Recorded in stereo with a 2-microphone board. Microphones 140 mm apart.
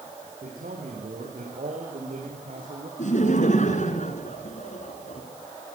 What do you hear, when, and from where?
0.4 s a man speaking: 85° right, 9.5 m; by 2.9 s 75° right (ahead or behind), 12 m
3.0 s laughter: 60° left (ahead or behind), 3.5 m